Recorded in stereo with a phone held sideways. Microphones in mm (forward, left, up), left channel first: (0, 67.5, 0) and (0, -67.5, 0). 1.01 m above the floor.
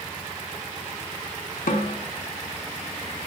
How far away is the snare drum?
About 1.0 m.